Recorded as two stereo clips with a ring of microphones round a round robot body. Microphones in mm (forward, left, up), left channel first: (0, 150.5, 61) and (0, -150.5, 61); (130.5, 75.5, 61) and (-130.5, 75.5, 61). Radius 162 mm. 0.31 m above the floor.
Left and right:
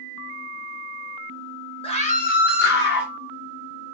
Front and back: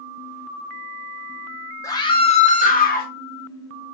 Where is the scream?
55° left, 0.9 m; by 3.1 s 45° left, 1.3 m.